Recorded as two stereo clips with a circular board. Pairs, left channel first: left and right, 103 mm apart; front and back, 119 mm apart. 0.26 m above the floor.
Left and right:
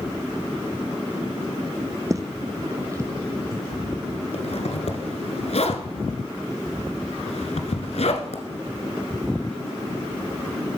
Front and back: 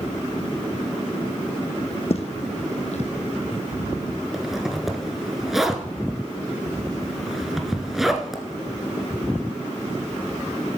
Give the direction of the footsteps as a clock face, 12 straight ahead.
1 o'clock.